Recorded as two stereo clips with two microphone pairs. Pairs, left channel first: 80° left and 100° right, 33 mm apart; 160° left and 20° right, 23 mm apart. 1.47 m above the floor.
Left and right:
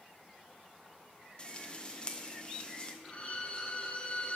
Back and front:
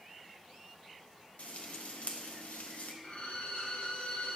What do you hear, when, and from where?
1.4 s frying: 145° left, 0.9 m
3.0 s a violin: 135° left, 1.1 m